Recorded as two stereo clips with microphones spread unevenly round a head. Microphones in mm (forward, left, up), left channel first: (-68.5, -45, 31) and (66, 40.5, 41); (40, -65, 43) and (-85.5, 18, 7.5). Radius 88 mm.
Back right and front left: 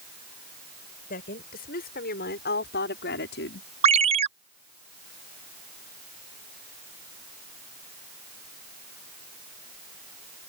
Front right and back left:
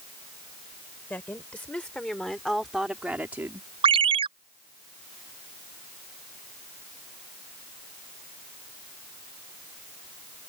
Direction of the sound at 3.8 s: 85° left.